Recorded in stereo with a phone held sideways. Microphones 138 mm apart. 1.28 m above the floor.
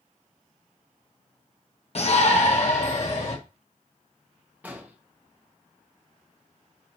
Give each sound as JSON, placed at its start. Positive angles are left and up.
{"t": 1.9, "sound": "a shout", "side_deg": 50, "distance_m": 1.3}
{"t": 4.6, "sound": "an explosion", "side_deg": -10, "distance_m": 1.7}